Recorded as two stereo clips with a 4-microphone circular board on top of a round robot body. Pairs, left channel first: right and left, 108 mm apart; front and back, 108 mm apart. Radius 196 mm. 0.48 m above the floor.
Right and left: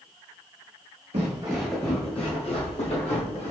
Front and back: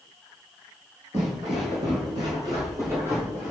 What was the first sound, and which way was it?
Footsteps, 110° left.